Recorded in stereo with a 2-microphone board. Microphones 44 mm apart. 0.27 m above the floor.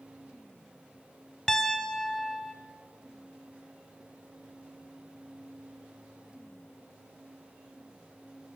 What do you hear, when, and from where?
1.5 s a piano: 15° left (ahead or behind), 0.9 m